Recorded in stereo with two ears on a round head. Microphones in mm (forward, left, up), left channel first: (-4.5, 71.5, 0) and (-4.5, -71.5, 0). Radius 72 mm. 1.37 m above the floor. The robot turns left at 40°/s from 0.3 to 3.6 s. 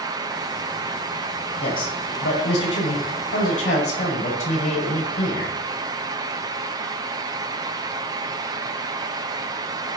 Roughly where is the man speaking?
Behind left.